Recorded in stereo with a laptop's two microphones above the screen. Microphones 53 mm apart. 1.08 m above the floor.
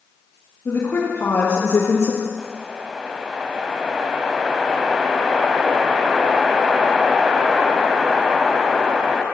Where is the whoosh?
15° right (ahead or behind), 1.4 m.